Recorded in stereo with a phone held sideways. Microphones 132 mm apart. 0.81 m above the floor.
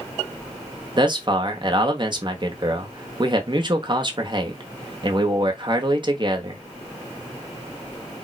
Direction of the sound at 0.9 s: 40° right (ahead or behind).